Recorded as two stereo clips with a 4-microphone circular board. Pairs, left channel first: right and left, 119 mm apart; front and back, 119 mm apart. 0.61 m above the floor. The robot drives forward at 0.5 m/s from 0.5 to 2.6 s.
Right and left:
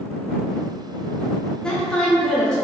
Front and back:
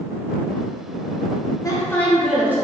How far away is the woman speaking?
About 0.6 m.